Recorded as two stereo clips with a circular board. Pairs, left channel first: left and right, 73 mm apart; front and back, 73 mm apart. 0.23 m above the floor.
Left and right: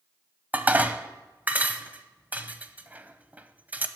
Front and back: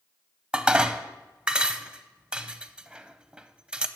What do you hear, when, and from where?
0.5 s dishes clattering: 120° right, 0.6 m